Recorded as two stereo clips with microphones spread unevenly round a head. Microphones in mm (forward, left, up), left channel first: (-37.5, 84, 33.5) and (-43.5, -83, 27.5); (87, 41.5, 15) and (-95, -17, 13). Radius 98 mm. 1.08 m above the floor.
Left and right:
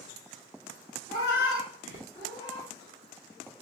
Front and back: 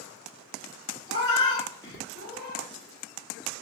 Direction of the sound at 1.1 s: 45° left.